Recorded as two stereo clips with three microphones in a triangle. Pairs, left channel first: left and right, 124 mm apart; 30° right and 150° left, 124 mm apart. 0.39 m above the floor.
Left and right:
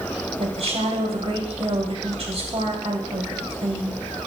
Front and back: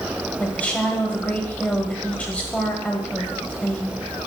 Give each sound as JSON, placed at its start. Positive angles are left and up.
{"t": 0.4, "sound": "a woman speaking", "azimuth_deg": -105, "distance_m": 2.0}